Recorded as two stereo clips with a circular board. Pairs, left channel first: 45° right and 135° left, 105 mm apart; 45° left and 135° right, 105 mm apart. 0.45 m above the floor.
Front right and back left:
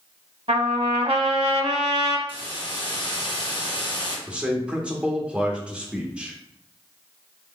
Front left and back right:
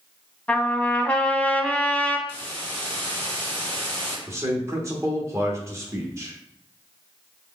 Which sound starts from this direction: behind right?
A man speaking, at 4.3 s.